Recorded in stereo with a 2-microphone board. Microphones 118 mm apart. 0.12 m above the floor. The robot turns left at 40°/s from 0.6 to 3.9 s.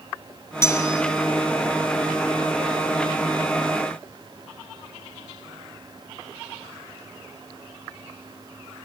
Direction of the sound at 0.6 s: 25° left (ahead or behind).